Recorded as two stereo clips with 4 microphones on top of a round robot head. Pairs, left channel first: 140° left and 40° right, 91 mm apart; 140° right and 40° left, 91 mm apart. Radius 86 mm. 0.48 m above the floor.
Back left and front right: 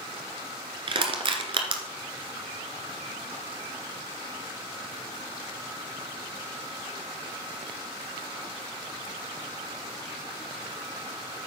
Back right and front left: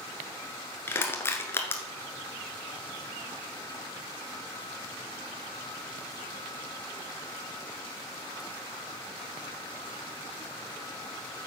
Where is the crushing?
70° right, 1.3 m.